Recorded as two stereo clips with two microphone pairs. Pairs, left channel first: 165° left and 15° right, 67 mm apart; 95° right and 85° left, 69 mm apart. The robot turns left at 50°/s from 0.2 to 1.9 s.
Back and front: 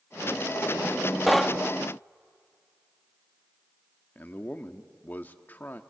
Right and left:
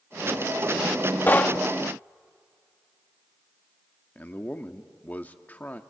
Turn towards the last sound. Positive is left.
turn(degrees=-150)